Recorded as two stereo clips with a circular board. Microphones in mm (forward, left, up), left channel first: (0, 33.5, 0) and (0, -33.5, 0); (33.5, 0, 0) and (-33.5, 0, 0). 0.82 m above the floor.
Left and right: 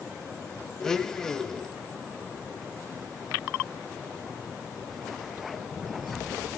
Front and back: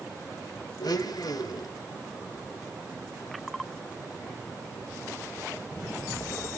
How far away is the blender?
About 1.2 m.